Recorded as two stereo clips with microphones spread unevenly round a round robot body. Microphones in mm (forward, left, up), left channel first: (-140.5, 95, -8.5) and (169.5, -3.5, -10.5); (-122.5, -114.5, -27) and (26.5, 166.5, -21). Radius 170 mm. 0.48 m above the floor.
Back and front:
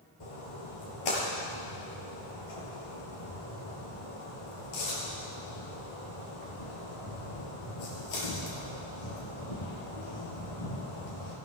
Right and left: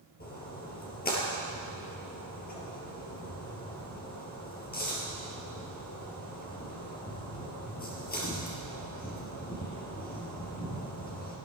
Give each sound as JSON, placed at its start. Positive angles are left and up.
{"t": 0.2, "sound": "a splash", "azimuth_deg": 180, "distance_m": 4.0}